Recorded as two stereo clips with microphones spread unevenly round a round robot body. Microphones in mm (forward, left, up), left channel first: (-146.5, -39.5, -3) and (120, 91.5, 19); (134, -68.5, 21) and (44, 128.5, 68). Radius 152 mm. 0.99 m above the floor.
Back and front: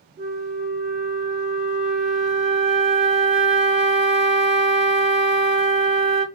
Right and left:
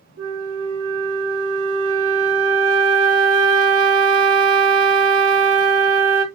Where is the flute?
95° left, 1.6 m.